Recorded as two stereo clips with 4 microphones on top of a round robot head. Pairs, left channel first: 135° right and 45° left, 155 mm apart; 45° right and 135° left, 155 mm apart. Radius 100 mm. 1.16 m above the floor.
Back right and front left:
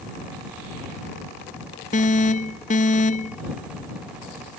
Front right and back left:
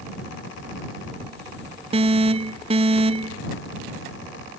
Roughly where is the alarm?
Behind.